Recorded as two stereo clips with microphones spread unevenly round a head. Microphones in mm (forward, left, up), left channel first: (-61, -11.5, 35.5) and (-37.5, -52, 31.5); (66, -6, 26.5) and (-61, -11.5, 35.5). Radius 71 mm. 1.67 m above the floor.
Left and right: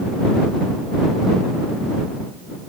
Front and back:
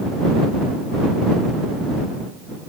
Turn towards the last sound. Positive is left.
No sound to turn to.